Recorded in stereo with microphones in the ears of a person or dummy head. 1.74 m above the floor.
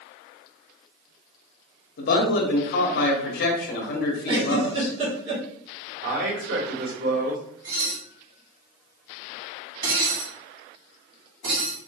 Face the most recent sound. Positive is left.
turn(degrees=-55)  # may be behind; listen again after turning